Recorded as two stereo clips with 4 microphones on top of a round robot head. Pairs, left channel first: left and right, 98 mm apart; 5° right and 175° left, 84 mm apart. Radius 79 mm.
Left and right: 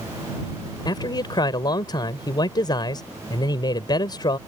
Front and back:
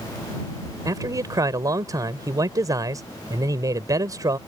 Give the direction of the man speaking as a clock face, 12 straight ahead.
8 o'clock.